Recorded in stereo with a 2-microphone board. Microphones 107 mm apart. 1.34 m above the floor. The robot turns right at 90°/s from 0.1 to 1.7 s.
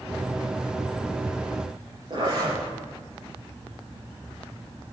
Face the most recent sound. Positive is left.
turn(degrees=-50)  # may be behind; listen again after turning